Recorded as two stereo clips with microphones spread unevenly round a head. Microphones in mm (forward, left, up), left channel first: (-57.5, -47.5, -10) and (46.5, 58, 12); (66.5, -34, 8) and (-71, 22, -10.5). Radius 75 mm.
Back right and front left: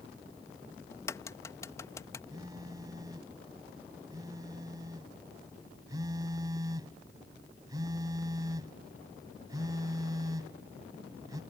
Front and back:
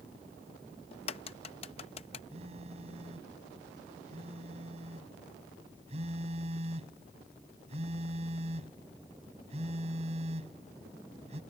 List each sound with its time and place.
0.9 s a crack: 60° right
2.3 s a phone buzzing: 105° left